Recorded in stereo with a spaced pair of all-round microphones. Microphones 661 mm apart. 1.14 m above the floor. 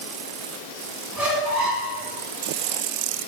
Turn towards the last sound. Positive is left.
turn(degrees=-30)  # may be behind; listen again after turning